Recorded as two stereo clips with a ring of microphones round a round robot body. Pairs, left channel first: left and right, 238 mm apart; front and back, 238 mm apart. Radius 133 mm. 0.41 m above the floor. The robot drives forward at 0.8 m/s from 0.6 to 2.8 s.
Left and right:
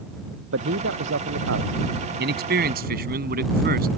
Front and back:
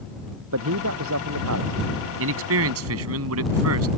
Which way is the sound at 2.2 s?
140° right.